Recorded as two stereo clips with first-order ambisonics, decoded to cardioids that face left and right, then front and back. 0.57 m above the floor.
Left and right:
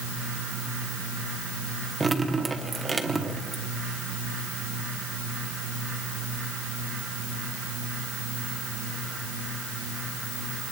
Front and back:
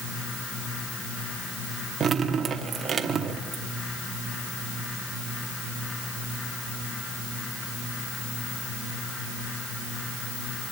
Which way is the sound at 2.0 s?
155° right.